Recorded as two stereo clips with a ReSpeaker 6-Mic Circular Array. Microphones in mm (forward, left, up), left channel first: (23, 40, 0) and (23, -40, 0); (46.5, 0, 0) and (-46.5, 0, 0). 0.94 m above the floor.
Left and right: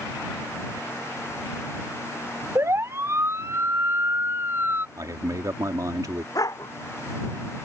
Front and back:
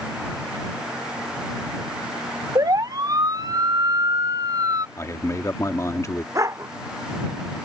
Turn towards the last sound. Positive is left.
turn(degrees=130)